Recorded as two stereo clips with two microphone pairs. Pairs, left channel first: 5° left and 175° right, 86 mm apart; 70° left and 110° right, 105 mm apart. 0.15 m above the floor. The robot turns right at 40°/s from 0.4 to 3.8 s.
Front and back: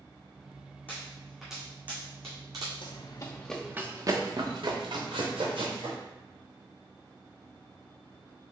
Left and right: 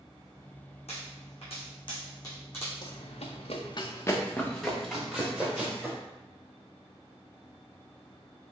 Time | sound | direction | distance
0.9 | a pop | 70° left | 1.9 m
2.8 | running footsteps | 25° left | 0.9 m